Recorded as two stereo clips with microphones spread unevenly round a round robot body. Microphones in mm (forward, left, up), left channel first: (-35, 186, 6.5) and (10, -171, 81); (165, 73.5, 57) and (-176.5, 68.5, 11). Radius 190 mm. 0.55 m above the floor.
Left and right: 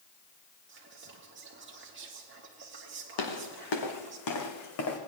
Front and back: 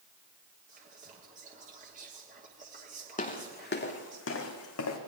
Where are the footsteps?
70° left, 2 m; by 5.0 s 40° left, 2.5 m.